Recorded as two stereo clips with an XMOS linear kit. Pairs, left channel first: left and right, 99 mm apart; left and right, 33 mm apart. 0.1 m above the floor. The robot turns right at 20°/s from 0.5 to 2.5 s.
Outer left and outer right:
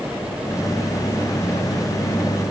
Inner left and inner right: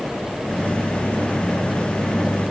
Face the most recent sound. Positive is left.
No sound to turn to.